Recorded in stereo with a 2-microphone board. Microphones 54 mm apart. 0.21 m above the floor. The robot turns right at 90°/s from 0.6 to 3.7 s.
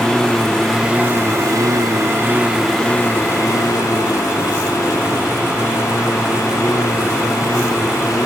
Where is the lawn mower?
10° left (ahead or behind); by 8.3 s 85° left.